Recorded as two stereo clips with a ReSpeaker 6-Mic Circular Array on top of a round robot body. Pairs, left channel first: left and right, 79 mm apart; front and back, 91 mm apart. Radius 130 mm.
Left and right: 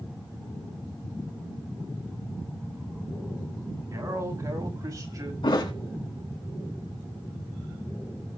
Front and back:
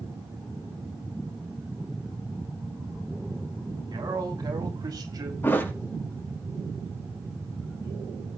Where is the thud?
65° left, 3.5 m.